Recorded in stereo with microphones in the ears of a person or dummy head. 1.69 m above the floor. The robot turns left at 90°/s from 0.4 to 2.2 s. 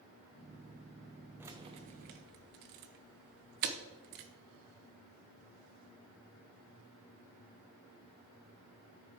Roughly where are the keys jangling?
Centre.